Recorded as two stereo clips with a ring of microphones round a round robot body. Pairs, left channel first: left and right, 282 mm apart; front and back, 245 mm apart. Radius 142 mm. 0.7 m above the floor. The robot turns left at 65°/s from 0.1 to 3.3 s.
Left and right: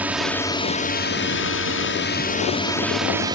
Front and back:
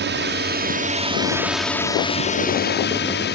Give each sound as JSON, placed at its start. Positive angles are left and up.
{"t": 0.0, "sound": "a drone", "azimuth_deg": -170}